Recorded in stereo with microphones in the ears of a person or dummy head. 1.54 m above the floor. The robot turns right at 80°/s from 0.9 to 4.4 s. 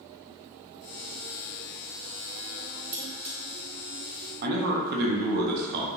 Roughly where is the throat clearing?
No throat clearing in this recording.